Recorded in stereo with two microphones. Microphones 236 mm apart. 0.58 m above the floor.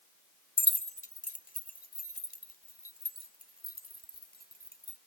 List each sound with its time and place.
0.6 s keys jangling: 20° left (ahead or behind); by 5.0 s 40° left (ahead or behind)